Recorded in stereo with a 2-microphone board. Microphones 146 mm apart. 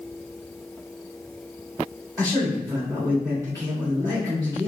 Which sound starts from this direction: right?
A man speaking, at 2.2 s.